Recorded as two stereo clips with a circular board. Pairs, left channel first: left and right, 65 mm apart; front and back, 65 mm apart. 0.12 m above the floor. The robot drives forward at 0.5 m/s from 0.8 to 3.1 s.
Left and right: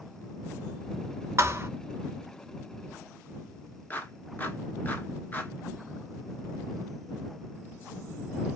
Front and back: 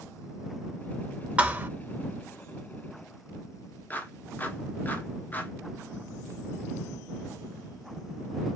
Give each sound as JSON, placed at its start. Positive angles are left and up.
{"t": 1.4, "sound": "a thud", "azimuth_deg": -120, "distance_m": 0.7}
{"t": 3.9, "sound": "a clap", "azimuth_deg": 45, "distance_m": 1.2}